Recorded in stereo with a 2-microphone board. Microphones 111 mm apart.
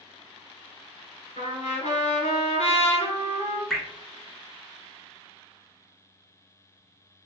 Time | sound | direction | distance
1.4 | a trumpet | 65° left (ahead or behind) | 1.5 m
3.7 | dripping | 5° left (ahead or behind) | 0.8 m